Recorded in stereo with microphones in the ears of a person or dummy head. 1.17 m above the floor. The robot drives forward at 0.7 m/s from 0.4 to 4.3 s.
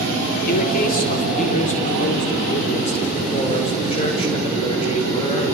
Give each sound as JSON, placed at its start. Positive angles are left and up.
{"t": 0.5, "sound": "a man speaking", "side_deg": 40, "distance_m": 3.5}